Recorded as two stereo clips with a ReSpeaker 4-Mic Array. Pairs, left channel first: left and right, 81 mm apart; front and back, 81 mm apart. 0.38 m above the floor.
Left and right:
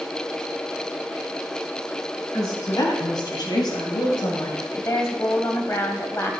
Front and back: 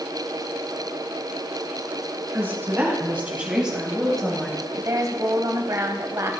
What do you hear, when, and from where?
2.3 s a woman speaking: 120° left, 3.5 m; by 4.6 s 65° left, 2 m
4.7 s a woman speaking: 140° left, 1.7 m